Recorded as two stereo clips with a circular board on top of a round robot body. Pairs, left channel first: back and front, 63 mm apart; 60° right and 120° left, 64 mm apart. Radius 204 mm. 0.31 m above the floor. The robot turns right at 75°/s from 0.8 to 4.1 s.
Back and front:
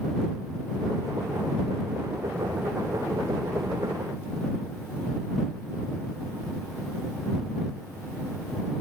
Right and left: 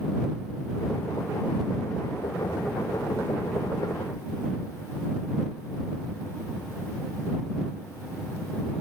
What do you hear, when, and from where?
Only background noise.